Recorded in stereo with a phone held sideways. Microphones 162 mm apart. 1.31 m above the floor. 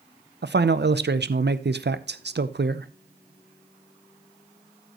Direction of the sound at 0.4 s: 85° right.